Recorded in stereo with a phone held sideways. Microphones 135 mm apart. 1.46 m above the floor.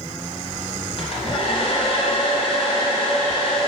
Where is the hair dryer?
45° left (ahead or behind), 2.5 m.